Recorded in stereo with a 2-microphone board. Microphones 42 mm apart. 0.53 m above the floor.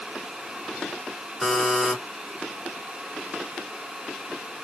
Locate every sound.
1.4 s a buzzer: 5° right (ahead or behind), 1.4 m